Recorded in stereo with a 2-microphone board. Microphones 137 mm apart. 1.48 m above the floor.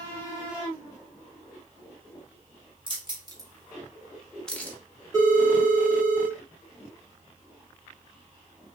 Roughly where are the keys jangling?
Right.